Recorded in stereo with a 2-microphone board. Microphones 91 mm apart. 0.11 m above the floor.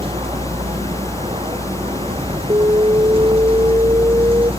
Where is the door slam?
I don't hear a door slam.